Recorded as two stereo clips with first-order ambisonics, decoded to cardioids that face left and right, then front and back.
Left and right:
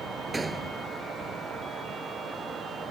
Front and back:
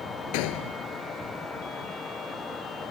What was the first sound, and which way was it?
A gunshot, 10° right.